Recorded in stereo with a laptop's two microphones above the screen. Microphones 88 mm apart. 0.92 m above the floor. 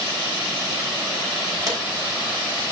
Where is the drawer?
40° right (ahead or behind), 3.5 m.